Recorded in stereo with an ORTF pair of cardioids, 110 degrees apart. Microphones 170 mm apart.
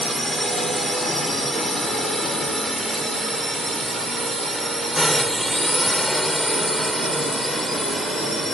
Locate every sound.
0.0 s a drone: straight ahead